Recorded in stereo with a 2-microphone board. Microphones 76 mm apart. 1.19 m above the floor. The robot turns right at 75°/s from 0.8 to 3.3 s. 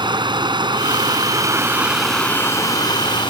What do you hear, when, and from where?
0.0 s running water: 95° right; by 3.3 s 95° left